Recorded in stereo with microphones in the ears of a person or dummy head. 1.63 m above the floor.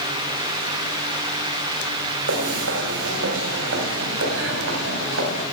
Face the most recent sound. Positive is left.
turn(degrees=-75)  # may be behind; listen again after turning